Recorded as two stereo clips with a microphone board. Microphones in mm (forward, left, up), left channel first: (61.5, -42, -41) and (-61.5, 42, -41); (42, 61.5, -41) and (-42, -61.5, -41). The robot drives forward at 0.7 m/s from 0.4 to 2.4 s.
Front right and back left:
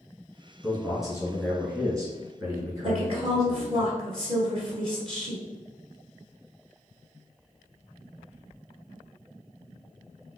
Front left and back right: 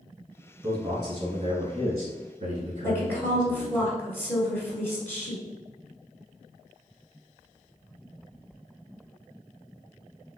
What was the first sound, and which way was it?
A man speaking, 100° right.